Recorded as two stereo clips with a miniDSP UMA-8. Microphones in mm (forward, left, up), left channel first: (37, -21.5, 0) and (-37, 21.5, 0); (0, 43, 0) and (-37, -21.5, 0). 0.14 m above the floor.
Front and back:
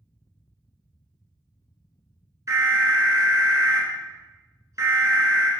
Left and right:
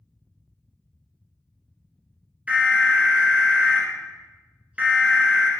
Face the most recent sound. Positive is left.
turn(degrees=175)